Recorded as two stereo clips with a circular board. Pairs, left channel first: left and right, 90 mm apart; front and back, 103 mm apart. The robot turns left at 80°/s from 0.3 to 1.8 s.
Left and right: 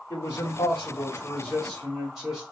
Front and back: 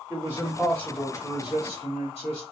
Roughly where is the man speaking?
Behind left.